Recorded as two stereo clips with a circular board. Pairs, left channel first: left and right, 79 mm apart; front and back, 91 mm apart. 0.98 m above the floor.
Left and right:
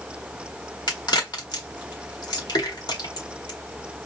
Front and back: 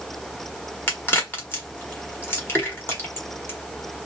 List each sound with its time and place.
0.9 s a crack: 65° left, 1.4 m